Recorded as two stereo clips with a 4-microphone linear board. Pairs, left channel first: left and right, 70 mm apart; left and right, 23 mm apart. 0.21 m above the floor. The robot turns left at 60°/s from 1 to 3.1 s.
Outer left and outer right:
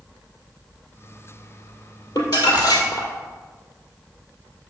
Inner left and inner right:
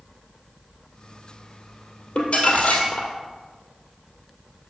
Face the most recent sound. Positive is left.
turn(degrees=55)